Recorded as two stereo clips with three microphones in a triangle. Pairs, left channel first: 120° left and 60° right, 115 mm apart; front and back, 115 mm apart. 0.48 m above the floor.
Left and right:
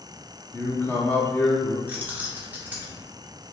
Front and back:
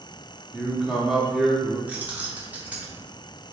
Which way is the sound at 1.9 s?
115° right.